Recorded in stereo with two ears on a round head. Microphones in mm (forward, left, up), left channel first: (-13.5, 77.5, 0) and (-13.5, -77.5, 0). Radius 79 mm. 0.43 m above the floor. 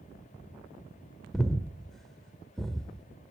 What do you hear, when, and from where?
1.3 s breathing: centre (ahead or behind), 0.7 m